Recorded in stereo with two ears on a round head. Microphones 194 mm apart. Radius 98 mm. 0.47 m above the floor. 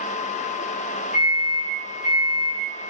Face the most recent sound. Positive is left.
turn(degrees=40)  # may be behind; listen again after turning